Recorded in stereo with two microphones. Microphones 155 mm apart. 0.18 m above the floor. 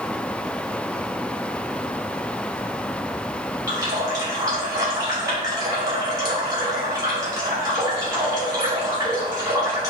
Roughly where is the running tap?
Right.